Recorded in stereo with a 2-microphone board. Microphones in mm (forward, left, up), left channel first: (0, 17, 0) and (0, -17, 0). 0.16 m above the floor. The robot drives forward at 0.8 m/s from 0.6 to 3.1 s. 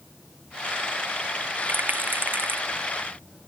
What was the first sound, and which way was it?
A rattle, 75° right (ahead or behind).